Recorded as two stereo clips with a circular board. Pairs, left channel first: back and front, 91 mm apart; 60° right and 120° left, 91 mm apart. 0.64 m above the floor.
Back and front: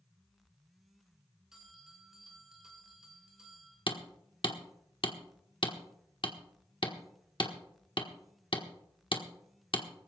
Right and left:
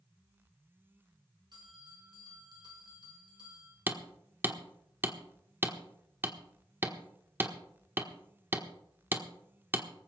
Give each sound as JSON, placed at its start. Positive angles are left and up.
{"t": 1.5, "sound": "a bell", "azimuth_deg": 85, "distance_m": 4.5}
{"t": 3.9, "sound": "hammering", "azimuth_deg": -175, "distance_m": 1.2}